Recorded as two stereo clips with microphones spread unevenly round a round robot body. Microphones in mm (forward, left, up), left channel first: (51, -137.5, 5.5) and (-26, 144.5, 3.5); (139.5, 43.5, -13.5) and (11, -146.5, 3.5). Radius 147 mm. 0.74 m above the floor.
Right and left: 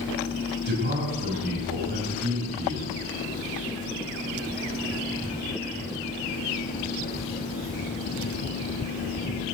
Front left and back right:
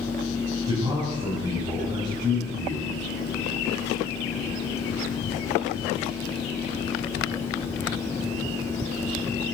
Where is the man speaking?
160° left, 5 m.